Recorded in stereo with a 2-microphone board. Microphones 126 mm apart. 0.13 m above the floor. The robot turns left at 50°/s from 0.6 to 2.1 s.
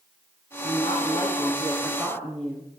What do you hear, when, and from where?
0.6 s a woman speaking: 70° left, 9 m; by 2.7 s 5° right, 9 m